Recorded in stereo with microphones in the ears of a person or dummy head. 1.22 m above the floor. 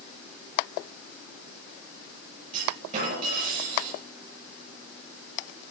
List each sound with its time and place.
2.5 s a clunk: 45° right (ahead or behind), 6.5 m